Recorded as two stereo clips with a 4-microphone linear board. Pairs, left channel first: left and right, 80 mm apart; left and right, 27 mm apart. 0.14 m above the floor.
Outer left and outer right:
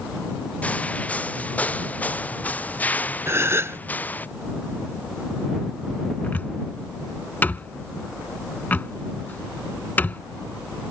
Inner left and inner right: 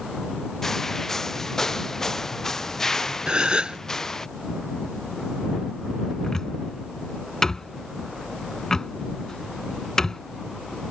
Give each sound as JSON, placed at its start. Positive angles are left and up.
{"t": 0.6, "sound": "footsteps", "side_deg": 15}
{"t": 3.3, "sound": "a gasp", "side_deg": -35}
{"t": 6.2, "sound": "a cupboard door", "side_deg": 25}